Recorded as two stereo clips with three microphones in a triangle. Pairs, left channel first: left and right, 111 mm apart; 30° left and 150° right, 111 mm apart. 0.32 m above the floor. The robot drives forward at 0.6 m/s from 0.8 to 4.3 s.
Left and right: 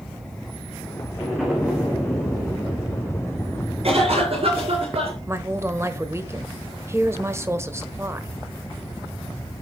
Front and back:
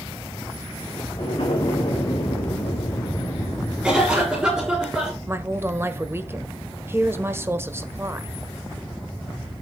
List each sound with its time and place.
1.2 s an explosion: 5° right, 4 m; by 4.8 s 10° right, 2.0 m
3.8 s a cough: 65° right, 8 m; by 5.2 s 70° right, 8 m
5.3 s a woman speaking: 120° right, 0.9 m